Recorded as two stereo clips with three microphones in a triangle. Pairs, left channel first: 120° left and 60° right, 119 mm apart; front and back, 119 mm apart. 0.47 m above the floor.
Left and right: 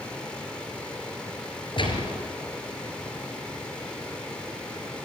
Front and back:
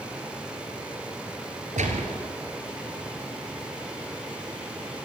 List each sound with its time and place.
1.8 s a gunshot: 165° left, 3.5 m